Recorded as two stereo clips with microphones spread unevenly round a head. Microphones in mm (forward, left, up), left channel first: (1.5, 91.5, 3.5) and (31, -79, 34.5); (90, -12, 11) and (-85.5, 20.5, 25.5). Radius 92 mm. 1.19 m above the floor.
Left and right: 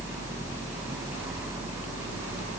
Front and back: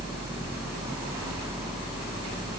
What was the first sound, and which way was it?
Only background noise.